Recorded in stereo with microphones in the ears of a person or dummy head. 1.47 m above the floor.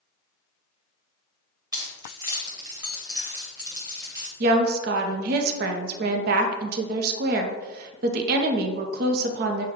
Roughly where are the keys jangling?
Right.